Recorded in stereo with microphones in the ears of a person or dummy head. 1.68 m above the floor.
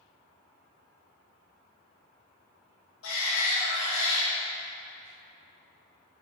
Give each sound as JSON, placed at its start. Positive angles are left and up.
{"t": 3.0, "sound": "a shout", "side_deg": 85, "distance_m": 2.5}